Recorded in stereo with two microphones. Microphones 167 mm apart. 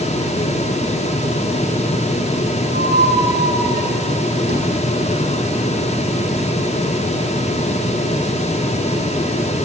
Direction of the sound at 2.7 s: 90° right.